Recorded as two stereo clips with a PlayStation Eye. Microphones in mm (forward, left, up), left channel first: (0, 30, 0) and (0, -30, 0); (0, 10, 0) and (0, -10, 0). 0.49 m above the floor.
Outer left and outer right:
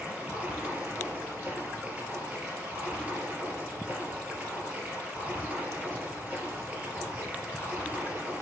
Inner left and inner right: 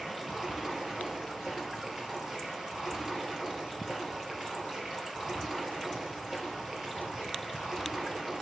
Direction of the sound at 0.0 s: 20° right (ahead or behind).